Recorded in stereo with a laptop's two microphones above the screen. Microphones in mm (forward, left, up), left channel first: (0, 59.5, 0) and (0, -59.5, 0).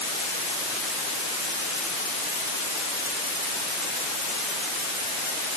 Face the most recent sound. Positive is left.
No sound to turn to.